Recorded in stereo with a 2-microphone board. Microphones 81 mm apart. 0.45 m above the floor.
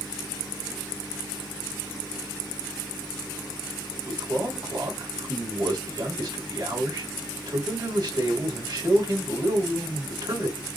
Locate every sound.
4.0 s a man speaking: 60° right (ahead or behind), 3 m